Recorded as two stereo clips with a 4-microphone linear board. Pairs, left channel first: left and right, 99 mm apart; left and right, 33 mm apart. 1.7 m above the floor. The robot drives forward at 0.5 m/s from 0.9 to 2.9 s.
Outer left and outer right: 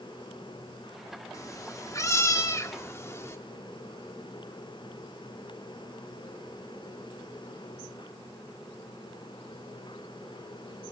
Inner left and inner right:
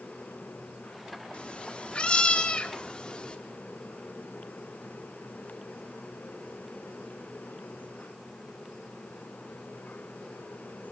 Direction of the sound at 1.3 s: 35° left (ahead or behind).